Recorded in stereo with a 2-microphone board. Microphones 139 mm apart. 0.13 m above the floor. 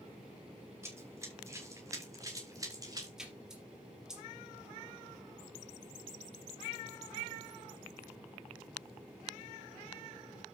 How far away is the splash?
About 3.5 m.